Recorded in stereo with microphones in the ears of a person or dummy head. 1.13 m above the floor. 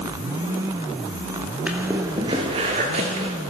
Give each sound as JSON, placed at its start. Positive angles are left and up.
{"t": 1.7, "sound": "footsteps", "side_deg": -10, "distance_m": 1.2}